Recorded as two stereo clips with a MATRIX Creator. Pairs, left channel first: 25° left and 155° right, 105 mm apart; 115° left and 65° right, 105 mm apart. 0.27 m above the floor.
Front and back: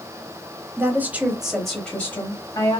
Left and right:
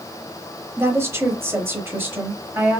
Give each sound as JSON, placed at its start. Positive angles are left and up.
{"t": 0.8, "sound": "a woman speaking", "azimuth_deg": -110, "distance_m": 1.0}